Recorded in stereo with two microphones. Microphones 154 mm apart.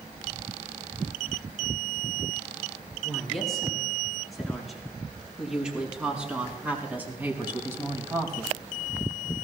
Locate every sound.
3.0 s a woman speaking: 5° left (ahead or behind), 7.5 m; by 8.6 s 25° right (ahead or behind), 3 m